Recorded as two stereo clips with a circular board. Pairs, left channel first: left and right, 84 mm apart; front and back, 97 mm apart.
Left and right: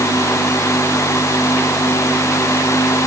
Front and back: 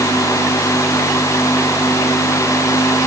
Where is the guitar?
No guitar in this recording.